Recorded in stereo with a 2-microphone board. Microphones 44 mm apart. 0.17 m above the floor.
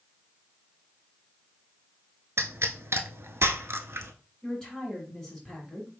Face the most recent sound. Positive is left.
turn(degrees=15)  # may be behind; listen again after turning